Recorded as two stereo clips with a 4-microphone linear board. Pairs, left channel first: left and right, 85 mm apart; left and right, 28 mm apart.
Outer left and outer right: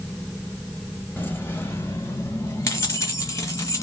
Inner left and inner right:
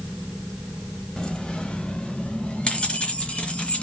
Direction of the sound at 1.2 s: 25° left (ahead or behind).